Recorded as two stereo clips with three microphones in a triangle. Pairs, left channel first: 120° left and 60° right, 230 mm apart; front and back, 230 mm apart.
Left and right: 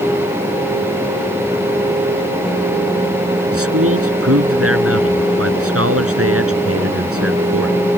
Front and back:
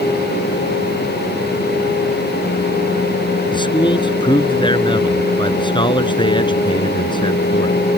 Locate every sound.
3.5 s a man speaking: 70° right